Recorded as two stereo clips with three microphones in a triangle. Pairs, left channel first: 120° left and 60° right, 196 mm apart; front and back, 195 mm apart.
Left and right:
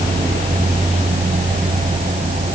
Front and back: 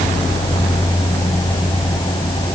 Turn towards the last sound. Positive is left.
No sound to turn to.